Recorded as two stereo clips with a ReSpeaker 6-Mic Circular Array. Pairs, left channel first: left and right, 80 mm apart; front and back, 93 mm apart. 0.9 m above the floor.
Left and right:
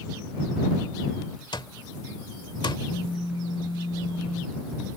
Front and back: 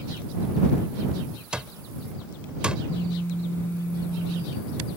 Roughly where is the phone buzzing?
Ahead left.